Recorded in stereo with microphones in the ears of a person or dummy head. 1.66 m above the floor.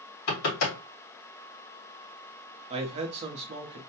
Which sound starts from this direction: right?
A man speaking, at 2.7 s.